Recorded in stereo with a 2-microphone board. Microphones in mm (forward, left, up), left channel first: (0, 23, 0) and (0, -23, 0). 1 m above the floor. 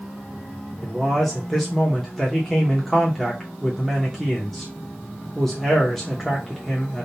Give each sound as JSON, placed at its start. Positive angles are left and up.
{"t": 0.8, "sound": "a man speaking", "side_deg": 5, "distance_m": 0.9}